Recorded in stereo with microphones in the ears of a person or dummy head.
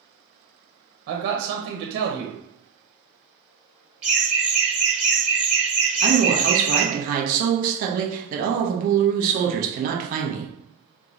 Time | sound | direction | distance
1.1 | a man speaking | 55° right (ahead or behind) | 0.7 m
4.0 | laughter | 10° right (ahead or behind) | 1.4 m
6.0 | a woman speaking | 50° right (ahead or behind) | 0.8 m